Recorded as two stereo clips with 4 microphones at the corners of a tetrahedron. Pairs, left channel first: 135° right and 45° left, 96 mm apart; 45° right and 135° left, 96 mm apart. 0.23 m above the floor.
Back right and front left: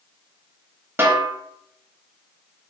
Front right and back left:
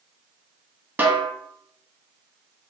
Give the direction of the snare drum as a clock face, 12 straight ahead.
9 o'clock.